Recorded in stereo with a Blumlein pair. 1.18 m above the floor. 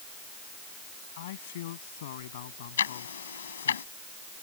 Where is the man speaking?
55° left; by 3.8 s 60° left.